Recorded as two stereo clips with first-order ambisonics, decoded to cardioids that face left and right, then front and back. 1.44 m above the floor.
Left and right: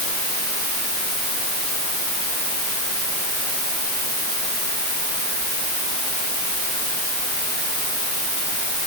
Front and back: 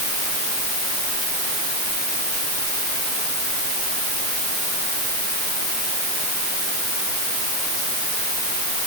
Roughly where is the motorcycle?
No motorcycle in this recording.